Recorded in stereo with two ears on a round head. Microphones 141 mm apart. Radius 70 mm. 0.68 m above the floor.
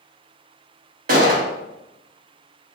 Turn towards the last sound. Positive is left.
turn(degrees=-55)  # may be behind; listen again after turning